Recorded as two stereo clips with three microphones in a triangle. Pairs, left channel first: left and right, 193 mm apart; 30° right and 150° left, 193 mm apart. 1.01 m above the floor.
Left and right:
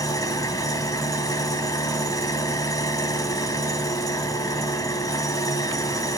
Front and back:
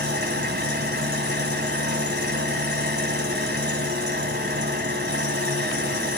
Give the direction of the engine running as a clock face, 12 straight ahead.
7 o'clock.